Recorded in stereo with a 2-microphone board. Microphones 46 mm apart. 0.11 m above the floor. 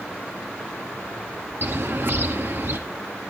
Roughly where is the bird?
Right.